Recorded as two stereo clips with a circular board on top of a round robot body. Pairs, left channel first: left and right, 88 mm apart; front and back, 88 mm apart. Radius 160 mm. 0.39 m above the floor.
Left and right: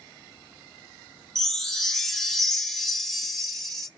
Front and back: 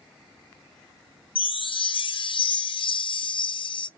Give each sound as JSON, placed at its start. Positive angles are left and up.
{"t": 1.4, "sound": "a chime", "azimuth_deg": 5, "distance_m": 0.7}